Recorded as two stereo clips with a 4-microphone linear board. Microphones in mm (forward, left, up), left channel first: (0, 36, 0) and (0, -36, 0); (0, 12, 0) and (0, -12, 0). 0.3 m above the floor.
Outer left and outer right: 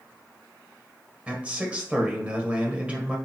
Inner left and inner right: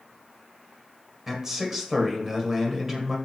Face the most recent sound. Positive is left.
turn(degrees=-20)  # may be behind; listen again after turning